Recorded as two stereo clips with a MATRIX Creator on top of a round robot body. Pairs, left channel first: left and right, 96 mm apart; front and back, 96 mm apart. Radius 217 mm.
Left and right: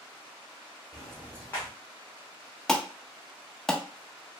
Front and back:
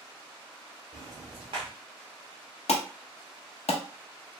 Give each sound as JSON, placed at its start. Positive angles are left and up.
{"t": 0.9, "sound": "ticking", "azimuth_deg": 165, "distance_m": 0.6}
{"t": 2.7, "sound": "an alarm", "azimuth_deg": 5, "distance_m": 0.5}